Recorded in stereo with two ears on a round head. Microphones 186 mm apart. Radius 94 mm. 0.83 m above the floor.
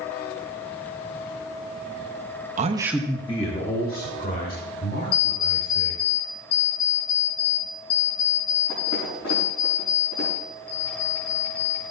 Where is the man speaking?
35° right (ahead or behind), 0.9 m; by 6.0 s 50° left (ahead or behind), 5 m.